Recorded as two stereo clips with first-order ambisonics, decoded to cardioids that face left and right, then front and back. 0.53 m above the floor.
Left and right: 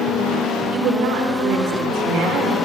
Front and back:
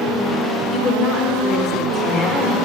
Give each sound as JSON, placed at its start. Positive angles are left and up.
{"t": 0.7, "sound": "a woman speaking", "azimuth_deg": -60, "distance_m": 1.4}